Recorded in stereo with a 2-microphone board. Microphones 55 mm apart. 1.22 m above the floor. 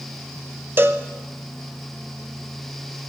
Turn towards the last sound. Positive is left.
turn(degrees=-40)  # may be behind; listen again after turning